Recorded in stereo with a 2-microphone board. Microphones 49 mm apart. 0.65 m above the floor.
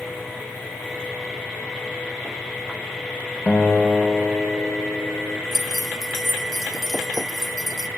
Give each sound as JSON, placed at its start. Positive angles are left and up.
{"t": 3.5, "sound": "a guitar", "side_deg": 30, "distance_m": 1.0}
{"t": 5.5, "sound": "keys jangling", "side_deg": -5, "distance_m": 0.5}